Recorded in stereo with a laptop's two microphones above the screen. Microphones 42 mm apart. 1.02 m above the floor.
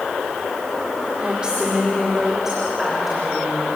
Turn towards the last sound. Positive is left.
turn(degrees=-5)  # may be behind; listen again after turning